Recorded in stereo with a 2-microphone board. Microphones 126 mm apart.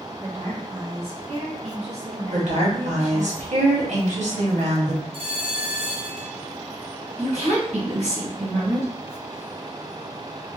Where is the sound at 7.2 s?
60° right (ahead or behind), 1.6 m.